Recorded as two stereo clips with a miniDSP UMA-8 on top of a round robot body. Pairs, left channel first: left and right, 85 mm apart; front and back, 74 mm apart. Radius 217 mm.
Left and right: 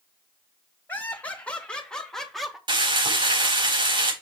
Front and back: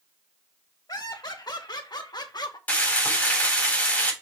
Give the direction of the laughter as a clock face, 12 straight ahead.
11 o'clock.